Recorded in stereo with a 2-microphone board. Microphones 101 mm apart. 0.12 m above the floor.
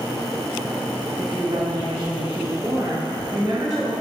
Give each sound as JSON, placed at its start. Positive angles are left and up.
{"t": 1.2, "sound": "a woman speaking", "side_deg": -40, "distance_m": 1.6}